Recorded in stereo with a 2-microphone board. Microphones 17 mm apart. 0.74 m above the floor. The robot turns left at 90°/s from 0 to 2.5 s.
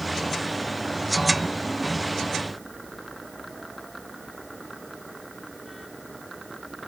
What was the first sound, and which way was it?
Only background noise.